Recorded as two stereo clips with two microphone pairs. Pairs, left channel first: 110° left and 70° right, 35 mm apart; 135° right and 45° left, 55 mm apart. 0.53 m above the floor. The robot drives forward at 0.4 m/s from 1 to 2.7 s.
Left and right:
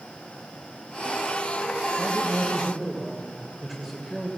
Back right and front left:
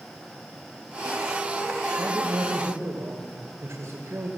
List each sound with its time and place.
2.0 s a man speaking: 20° left, 2.5 m; by 4.3 s 25° left, 2.5 m